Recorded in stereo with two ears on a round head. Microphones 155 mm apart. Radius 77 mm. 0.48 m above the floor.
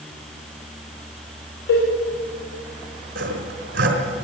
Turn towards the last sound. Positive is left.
turn(degrees=-55)  # may be behind; listen again after turning